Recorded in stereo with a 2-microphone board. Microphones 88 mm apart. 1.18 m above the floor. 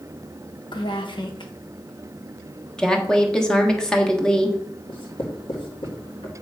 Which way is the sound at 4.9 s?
90° left.